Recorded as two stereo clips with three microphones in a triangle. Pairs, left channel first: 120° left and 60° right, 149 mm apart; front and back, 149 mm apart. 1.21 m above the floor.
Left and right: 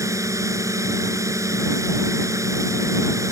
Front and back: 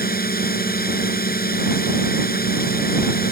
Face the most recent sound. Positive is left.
turn(degrees=10)